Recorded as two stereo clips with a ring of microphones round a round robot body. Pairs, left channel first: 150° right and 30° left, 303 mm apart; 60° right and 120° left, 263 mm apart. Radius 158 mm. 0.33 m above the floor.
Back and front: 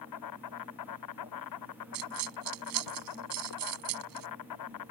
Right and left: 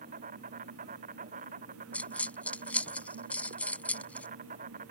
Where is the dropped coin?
25° left.